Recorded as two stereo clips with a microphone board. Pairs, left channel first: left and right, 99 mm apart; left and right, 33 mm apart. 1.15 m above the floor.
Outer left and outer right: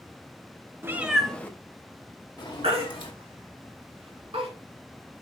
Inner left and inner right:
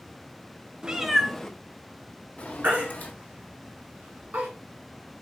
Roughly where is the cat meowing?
Right.